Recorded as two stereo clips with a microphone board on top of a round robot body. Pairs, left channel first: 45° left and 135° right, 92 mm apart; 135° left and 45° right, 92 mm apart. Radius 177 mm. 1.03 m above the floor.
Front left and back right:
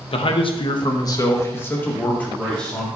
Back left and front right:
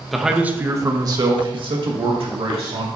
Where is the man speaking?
45° left, 1.2 m; by 2.9 s 35° right, 2.5 m.